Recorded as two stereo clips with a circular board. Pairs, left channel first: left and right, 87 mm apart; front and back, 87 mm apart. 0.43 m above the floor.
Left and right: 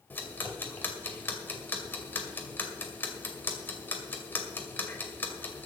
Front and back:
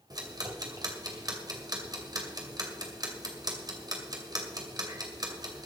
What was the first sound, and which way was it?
Ticking, 150° left.